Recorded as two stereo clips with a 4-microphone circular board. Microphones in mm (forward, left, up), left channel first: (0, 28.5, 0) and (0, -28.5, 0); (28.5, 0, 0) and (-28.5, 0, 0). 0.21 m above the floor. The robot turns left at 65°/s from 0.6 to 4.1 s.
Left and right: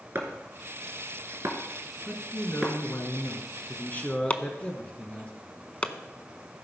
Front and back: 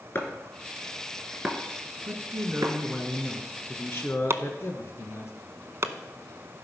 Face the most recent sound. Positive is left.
turn(degrees=150)